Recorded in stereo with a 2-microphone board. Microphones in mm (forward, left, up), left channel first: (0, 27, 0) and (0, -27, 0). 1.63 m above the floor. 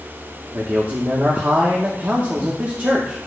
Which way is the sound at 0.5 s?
35° right (ahead or behind).